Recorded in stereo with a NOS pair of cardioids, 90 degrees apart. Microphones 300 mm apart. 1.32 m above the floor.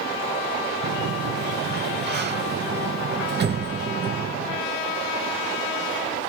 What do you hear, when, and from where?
0.8 s a sliding door: 35° right, 0.8 m